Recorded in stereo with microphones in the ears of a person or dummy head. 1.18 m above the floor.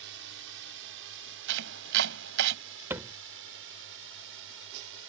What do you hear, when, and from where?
0.0 s a drone: 65° right (ahead or behind); by 5.1 s 70° right (ahead or behind)
1.5 s chopping: 70° right (ahead or behind)
2.9 s a thud: 10° right (ahead or behind)